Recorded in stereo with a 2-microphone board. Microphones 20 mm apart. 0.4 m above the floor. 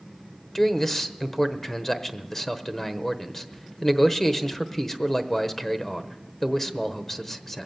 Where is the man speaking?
20° left (ahead or behind), 1.1 m.